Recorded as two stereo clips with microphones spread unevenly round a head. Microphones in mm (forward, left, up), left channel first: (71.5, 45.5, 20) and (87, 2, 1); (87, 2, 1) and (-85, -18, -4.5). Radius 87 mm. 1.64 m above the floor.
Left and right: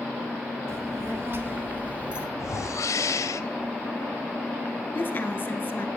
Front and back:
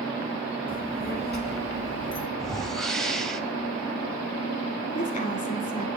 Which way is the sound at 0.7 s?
35° right.